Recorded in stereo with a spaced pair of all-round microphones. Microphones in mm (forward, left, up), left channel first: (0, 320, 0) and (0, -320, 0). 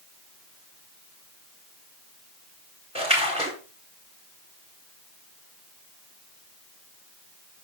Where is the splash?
10° right (ahead or behind), 4 m.